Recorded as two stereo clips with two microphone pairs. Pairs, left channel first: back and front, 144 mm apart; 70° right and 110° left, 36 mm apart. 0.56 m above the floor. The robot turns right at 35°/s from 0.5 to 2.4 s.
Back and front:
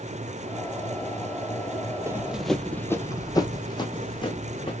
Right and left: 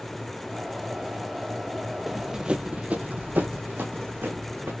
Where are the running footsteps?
30° left, 0.5 m; by 4.7 s 130° left, 1.7 m.